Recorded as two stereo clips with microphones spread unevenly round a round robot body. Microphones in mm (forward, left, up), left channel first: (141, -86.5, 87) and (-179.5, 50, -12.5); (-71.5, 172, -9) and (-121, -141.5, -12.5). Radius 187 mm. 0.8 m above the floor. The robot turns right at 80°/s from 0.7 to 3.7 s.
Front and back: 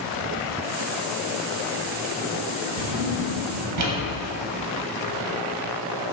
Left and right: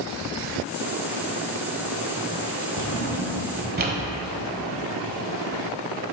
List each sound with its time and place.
2.8 s a drawer: 125° left, 1.1 m; by 4.0 s 160° right, 1.1 m